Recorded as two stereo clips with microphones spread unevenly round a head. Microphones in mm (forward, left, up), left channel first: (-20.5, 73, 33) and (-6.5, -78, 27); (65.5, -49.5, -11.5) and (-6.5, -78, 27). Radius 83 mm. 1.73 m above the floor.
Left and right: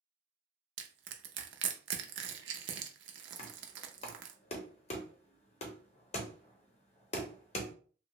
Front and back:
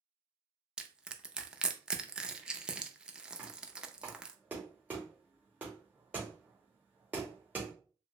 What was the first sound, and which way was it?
Crushing, 80° right.